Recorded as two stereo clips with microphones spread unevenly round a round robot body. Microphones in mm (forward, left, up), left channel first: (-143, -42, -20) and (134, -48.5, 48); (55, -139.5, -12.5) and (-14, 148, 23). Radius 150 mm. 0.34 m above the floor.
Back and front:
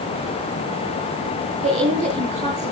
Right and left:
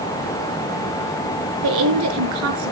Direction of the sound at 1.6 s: 70° left.